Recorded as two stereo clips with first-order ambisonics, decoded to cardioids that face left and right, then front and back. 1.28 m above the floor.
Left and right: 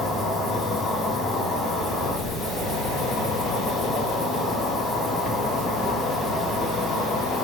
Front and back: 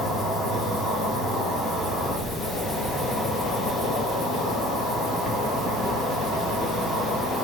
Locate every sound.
0.0 s an insect: 25° left, 1.2 m